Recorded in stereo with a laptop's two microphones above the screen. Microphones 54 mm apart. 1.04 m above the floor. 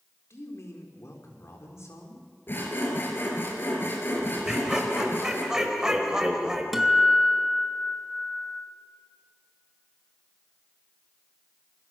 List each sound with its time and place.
0.3 s a man speaking: 60° left (ahead or behind), 3.5 m
2.5 s sawing: 45° left (ahead or behind), 3.5 m
4.5 s laughter: 15° right (ahead or behind), 5 m
6.7 s a guitar: 5° right (ahead or behind), 3 m